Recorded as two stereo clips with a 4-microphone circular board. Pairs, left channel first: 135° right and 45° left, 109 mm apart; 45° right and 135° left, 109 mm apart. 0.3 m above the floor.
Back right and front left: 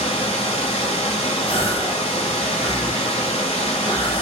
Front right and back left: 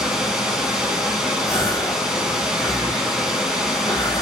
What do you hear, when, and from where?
0.0 s running water: 140° right, 0.7 m
1.5 s a gasp: 105° right, 1.0 m